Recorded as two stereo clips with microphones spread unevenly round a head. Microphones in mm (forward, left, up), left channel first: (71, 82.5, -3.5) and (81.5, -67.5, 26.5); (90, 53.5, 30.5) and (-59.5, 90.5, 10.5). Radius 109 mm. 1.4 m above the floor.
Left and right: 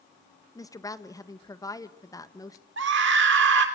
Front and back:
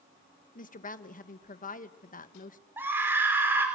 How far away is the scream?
About 3.5 m.